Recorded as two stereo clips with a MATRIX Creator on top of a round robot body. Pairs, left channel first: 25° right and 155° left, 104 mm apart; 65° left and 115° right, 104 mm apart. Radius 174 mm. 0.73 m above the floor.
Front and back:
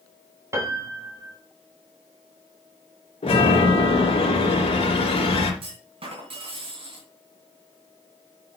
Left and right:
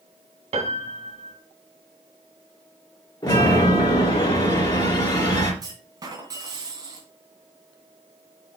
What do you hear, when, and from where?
0.5 s a piano: 140° right, 2 m
3.2 s a chime: 10° left, 3 m
5.6 s a clunk: 170° right, 2.5 m